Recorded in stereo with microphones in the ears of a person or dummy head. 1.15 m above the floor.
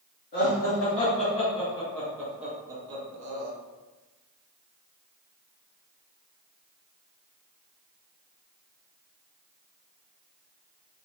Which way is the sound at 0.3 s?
40° left (ahead or behind).